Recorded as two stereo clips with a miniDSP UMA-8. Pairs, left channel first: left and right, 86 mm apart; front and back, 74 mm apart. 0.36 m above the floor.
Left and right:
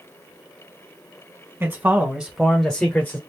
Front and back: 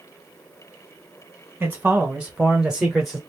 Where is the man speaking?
130° right, 1.6 m; by 3.2 s 90° left, 1.4 m.